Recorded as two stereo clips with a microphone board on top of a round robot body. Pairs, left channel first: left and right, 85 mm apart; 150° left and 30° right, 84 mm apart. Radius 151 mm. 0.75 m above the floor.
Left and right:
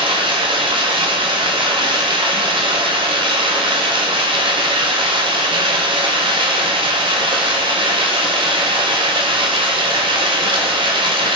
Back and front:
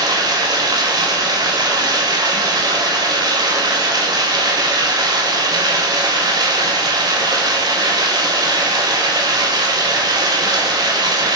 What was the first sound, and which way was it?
Running water, 70° right.